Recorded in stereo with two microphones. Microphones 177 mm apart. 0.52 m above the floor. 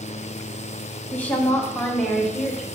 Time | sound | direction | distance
1.1 | a woman speaking | 10° left (ahead or behind) | 1.3 m